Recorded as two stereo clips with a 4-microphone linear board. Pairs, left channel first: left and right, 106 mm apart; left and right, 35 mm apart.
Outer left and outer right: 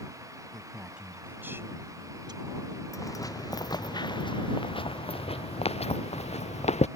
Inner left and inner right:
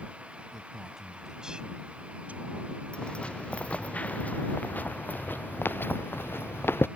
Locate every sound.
0.5 s a man speaking: centre (ahead or behind); by 2.8 s 55° right (ahead or behind)
2.9 s footsteps: 30° left (ahead or behind); by 6.9 s 80° left